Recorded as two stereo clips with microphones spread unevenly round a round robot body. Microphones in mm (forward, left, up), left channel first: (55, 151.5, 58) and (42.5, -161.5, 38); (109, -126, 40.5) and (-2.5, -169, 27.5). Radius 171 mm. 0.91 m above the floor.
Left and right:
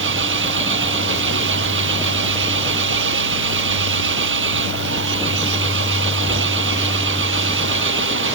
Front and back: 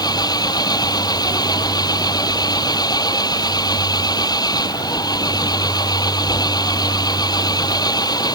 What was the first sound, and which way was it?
An engine running, 35° right.